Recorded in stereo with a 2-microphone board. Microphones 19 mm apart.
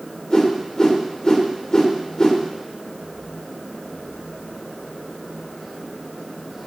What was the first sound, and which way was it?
A whoosh, 35° left (ahead or behind).